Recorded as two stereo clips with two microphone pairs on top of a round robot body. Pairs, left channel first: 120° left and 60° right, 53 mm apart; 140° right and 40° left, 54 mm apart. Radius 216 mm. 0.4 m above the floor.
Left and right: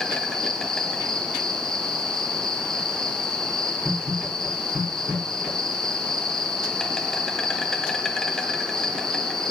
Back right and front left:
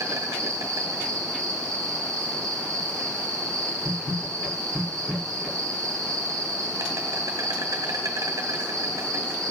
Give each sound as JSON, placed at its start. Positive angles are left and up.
{"t": 0.0, "sound": "an insect", "azimuth_deg": 40, "distance_m": 1.4}